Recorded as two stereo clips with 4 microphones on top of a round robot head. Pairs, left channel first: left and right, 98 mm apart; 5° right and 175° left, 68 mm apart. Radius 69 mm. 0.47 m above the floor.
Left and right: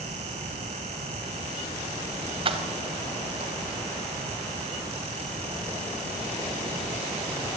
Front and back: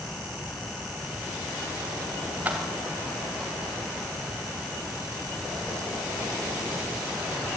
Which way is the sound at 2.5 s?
115° right.